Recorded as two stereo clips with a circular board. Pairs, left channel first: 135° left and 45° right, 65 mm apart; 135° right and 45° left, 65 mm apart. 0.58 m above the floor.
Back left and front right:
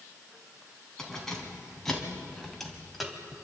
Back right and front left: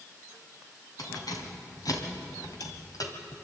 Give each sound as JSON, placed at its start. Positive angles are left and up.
{"t": 1.0, "sound": "keys jangling", "azimuth_deg": -145, "distance_m": 3.5}